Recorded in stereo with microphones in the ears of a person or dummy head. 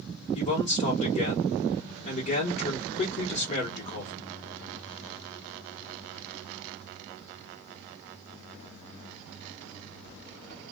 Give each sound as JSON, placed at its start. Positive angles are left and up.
{"t": 0.3, "sound": "a man speaking", "side_deg": 30, "distance_m": 1.2}